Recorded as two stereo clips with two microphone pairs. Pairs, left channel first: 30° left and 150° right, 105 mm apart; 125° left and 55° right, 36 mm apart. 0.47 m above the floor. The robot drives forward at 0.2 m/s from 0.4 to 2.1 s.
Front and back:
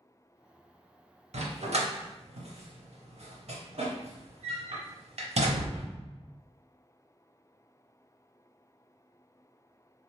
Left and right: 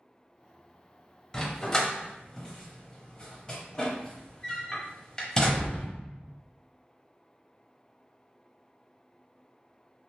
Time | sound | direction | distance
1.3 | a dog barking | 155° right | 0.5 m